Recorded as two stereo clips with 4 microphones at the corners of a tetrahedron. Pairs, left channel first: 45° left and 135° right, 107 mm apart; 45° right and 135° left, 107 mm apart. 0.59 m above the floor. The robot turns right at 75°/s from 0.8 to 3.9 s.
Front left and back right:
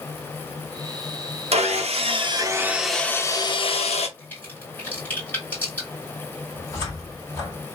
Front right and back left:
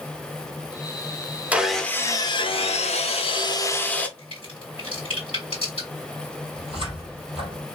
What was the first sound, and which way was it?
Sawing, 150° right.